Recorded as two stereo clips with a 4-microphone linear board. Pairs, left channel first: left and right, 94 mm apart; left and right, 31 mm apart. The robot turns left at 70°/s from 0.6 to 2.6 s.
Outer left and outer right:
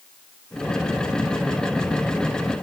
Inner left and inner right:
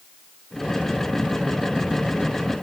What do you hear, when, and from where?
Only background noise.